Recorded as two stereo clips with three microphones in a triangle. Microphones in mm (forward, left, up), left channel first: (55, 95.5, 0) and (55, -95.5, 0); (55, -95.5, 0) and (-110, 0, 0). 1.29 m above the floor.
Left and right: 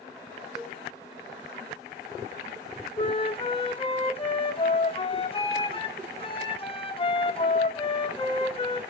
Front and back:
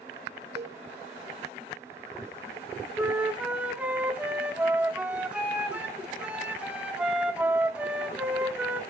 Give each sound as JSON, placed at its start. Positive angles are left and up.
{"t": 0.6, "sound": "a cowbell", "azimuth_deg": 180, "distance_m": 2.0}
{"t": 3.0, "sound": "a flute", "azimuth_deg": 75, "distance_m": 0.9}